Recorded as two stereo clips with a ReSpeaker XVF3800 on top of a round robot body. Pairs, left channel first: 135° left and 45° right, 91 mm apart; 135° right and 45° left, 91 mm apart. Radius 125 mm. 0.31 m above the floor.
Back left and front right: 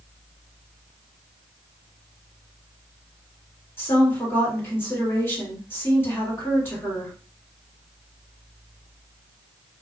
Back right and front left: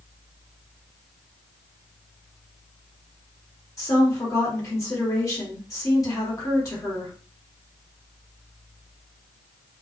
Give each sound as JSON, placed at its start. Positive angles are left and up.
{"t": 3.8, "sound": "a woman speaking", "azimuth_deg": -170, "distance_m": 1.9}